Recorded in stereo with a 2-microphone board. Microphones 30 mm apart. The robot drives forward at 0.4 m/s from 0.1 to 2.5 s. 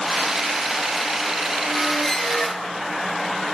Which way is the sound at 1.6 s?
15° left (ahead or behind).